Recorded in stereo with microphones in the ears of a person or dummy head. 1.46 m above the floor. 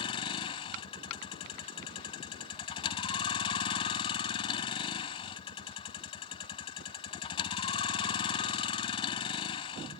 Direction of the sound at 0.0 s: 30° left (ahead or behind).